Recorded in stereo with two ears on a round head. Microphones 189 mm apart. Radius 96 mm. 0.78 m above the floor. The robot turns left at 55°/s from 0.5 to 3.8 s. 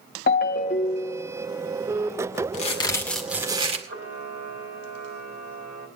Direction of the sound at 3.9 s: 55° right (ahead or behind).